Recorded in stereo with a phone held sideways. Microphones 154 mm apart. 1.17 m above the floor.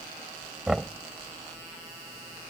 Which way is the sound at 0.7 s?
5° right (ahead or behind).